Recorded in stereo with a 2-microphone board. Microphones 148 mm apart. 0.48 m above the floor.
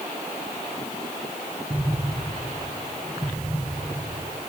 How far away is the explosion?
About 3 m.